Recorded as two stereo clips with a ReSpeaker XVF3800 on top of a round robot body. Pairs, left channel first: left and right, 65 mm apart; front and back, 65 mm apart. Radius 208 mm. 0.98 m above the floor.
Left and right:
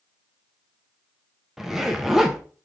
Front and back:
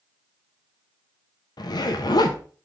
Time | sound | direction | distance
1.6 | a zipper | 5° right | 0.7 m